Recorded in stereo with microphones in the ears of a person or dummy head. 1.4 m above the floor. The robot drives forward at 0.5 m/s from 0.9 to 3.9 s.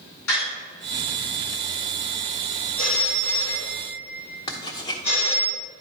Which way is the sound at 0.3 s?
85° left.